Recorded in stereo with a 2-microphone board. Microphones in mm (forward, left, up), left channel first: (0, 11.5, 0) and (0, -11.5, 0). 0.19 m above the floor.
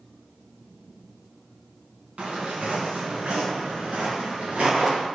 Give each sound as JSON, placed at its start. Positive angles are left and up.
{"t": 2.2, "sound": "footsteps", "side_deg": -75, "distance_m": 1.8}